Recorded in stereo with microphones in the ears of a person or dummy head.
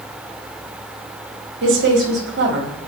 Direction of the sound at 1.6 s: 60° right (ahead or behind).